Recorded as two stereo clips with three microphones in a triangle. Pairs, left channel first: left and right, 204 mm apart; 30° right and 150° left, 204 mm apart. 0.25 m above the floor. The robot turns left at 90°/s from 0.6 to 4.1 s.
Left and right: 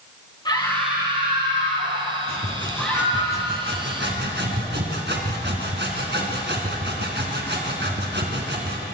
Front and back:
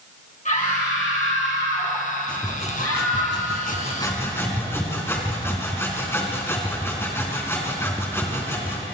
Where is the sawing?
55° left, 3.5 m; by 8.8 s 105° right, 3.5 m.